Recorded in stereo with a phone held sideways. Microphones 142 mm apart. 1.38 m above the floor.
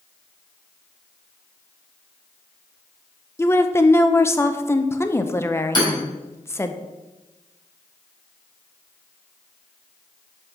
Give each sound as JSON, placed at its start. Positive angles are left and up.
{"t": 3.4, "sound": "a woman speaking", "side_deg": 20, "distance_m": 0.6}
{"t": 5.8, "sound": "hammering", "side_deg": 30, "distance_m": 4.0}